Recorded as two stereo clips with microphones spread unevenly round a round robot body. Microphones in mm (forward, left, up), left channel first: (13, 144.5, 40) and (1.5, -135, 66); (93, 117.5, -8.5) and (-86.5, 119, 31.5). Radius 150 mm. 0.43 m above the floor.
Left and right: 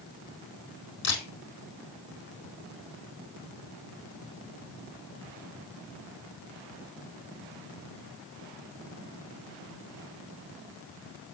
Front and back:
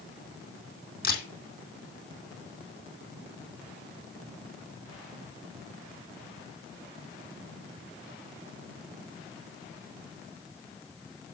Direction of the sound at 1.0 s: 35° left.